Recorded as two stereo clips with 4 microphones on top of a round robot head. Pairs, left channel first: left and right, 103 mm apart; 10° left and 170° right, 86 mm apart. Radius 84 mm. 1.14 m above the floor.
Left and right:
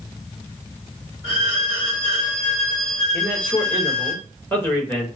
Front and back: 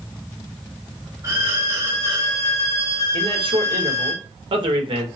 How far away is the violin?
About 2 m.